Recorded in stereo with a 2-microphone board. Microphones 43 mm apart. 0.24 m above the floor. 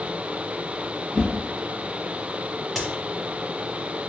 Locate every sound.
1.1 s a whoosh: 30° right (ahead or behind), 1.8 m
2.8 s a crack: centre (ahead or behind), 1.0 m